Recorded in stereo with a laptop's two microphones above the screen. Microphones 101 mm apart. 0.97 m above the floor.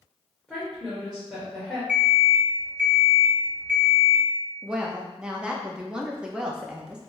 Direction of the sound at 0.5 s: 5° right (ahead or behind).